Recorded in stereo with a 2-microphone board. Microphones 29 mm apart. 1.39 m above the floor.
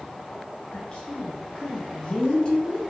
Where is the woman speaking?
30° left (ahead or behind), 0.6 m.